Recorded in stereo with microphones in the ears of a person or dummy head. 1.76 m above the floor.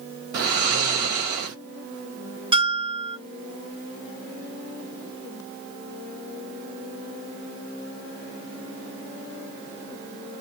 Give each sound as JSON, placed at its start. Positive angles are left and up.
{"t": 0.3, "sound": "snoring", "side_deg": -60, "distance_m": 1.7}
{"t": 2.5, "sound": "a bell", "side_deg": -25, "distance_m": 0.7}